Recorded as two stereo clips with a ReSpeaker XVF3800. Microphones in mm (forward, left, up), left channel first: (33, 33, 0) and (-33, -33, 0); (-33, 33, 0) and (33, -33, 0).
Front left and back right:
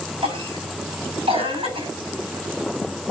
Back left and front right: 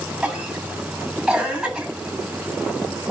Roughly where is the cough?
Behind right.